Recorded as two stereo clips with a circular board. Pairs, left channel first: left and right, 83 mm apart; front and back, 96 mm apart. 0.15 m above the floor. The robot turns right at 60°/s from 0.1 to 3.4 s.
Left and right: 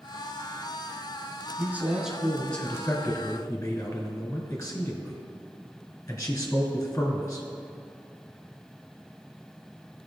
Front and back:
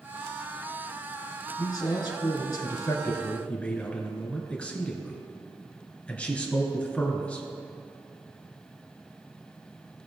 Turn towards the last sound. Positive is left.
turn(degrees=65)